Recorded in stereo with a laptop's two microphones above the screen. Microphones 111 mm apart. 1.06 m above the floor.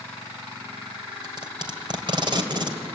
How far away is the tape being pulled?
About 2.5 m.